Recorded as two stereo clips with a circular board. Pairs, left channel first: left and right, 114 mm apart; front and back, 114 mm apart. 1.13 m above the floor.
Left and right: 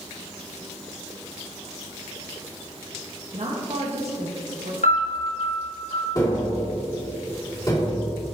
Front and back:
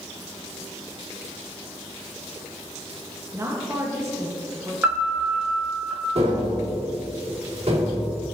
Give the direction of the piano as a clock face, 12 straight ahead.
8 o'clock.